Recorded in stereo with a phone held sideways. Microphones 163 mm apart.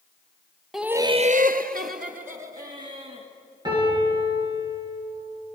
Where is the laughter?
Centre (ahead or behind), 0.8 m; by 3.3 s 50° right (ahead or behind), 2.5 m.